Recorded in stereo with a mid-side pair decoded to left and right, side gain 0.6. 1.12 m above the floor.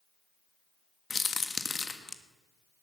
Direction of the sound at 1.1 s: 25° left.